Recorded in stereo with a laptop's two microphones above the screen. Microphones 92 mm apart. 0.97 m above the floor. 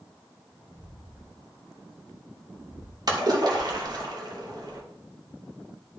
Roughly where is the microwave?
No microwave in this recording.